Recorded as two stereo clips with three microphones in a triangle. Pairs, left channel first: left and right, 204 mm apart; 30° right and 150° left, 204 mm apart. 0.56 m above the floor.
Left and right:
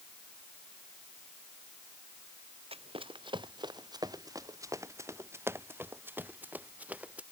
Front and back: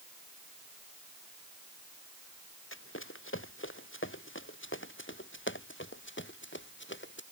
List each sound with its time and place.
2.7 s running footsteps: 30° right; by 7.2 s 5° right